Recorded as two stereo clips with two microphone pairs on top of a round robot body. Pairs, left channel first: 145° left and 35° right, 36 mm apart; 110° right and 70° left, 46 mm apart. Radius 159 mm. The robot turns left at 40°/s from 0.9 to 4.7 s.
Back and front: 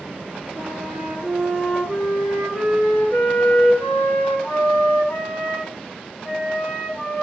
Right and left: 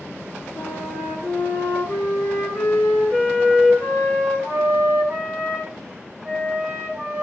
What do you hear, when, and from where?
0.6 s a flute: 70° right, 5.5 m; by 7.2 s 140° left, 5.5 m